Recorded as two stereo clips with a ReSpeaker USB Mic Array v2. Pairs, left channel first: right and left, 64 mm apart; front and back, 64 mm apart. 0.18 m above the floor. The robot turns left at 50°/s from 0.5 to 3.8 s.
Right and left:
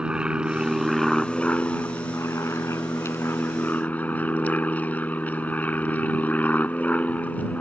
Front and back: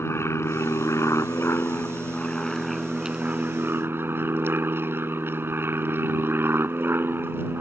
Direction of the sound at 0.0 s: 20° left.